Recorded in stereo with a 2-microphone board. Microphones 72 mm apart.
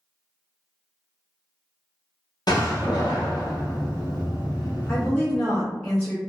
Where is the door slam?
70° left (ahead or behind), 0.8 m.